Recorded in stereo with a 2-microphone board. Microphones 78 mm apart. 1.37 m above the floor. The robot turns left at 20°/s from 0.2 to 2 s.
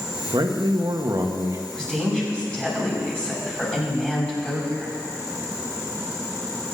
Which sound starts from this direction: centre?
A woman speaking, at 1.7 s.